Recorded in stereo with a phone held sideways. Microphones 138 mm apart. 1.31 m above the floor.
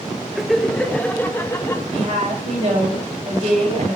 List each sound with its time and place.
0.3 s laughter: centre (ahead or behind), 1.4 m; by 1.8 s 20° left (ahead or behind), 2 m
1.9 s a woman speaking: 50° right (ahead or behind), 7 m